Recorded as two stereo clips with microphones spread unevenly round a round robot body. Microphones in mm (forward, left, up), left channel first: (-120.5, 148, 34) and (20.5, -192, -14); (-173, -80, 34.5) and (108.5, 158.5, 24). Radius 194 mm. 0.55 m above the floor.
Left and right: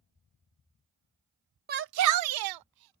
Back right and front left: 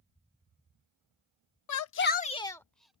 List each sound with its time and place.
1.7 s a shout: 120° right; by 3.0 s 45° right